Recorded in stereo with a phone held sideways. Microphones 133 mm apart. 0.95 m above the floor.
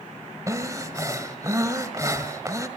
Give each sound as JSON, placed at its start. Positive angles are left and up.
{"t": 0.5, "sound": "breathing", "side_deg": -25, "distance_m": 1.6}